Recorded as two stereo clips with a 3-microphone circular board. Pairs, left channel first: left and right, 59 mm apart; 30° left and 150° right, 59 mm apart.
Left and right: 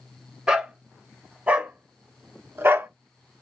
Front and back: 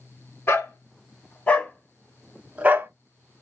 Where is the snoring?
I don't hear snoring.